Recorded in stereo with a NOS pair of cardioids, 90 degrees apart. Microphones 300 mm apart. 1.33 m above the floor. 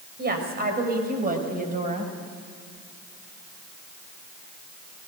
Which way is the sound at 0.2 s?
35° right.